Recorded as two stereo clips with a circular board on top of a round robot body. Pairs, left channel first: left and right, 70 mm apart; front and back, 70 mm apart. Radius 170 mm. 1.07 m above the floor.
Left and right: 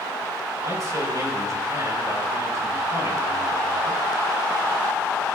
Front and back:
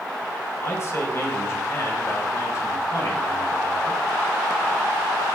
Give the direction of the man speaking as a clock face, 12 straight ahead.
2 o'clock.